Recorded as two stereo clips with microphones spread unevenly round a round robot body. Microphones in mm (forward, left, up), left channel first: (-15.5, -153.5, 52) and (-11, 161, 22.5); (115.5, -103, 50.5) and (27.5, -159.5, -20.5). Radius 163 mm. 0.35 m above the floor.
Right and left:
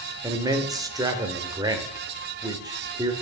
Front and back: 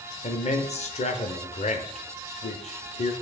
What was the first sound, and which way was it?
A man speaking, 40° left.